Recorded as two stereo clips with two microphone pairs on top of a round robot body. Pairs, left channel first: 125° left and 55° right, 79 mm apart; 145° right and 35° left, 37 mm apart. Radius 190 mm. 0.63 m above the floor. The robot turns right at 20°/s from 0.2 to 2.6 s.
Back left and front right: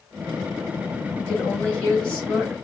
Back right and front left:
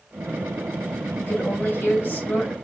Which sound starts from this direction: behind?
A woman speaking, at 1.2 s.